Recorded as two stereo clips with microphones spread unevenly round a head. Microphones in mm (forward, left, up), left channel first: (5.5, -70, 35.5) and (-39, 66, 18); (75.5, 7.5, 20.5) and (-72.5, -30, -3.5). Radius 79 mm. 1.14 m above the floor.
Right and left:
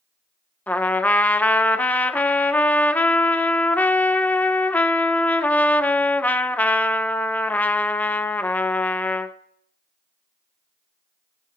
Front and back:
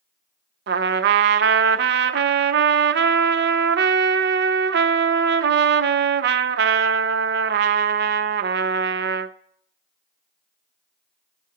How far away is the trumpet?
About 0.5 m.